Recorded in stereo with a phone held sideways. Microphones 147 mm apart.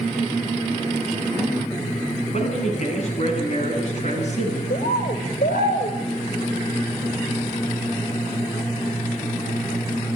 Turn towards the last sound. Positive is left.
turn(degrees=80)